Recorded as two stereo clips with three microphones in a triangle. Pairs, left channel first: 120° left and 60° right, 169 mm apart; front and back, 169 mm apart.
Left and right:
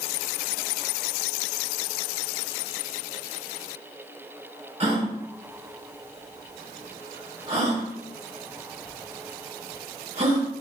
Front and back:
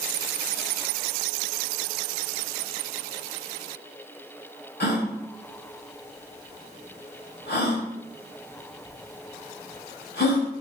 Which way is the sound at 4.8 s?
10° right.